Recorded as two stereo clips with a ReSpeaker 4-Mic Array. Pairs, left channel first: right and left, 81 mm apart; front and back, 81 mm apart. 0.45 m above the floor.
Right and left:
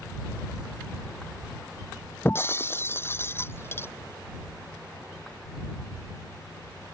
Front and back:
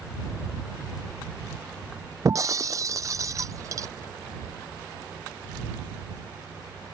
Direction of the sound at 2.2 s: 145° right.